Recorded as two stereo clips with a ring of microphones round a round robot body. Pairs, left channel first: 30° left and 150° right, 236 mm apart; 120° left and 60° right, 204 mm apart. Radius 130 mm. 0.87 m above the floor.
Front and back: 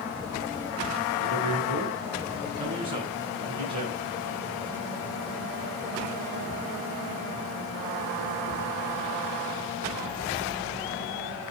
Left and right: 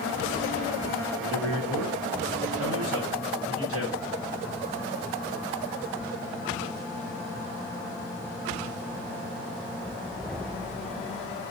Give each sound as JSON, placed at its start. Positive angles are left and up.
{"t": 1.1, "sound": "a man speaking", "azimuth_deg": -80, "distance_m": 4.5}